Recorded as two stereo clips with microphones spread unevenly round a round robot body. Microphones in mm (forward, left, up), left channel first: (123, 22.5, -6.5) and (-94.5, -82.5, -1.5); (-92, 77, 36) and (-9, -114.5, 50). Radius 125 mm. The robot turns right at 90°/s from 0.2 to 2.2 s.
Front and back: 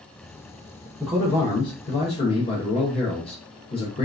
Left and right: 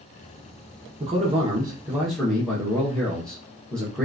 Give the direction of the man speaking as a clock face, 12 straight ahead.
2 o'clock.